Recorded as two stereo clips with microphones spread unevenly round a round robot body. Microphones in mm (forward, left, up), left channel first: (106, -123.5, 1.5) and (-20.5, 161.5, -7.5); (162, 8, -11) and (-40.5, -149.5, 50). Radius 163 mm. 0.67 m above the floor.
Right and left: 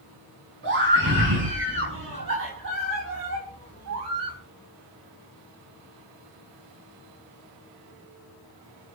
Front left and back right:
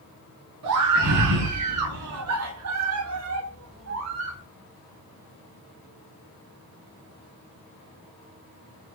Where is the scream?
170° left, 6.5 m; by 4.4 s 160° left, 4.5 m.